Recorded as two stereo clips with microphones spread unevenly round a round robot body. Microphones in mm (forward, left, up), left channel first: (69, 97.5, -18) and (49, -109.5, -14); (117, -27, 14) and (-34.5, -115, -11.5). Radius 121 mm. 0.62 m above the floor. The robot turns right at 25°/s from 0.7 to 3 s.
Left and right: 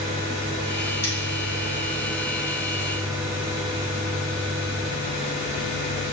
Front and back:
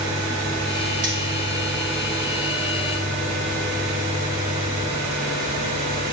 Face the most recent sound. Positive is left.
turn(degrees=-160)